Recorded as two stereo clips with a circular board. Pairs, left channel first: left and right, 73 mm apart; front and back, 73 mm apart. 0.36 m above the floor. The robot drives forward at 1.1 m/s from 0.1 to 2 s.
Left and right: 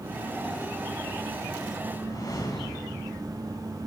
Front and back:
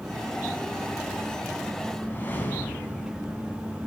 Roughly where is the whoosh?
Ahead left.